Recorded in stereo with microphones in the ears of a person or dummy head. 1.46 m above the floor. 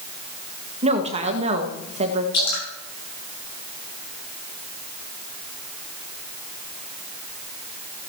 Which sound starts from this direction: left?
Dripping, at 2.3 s.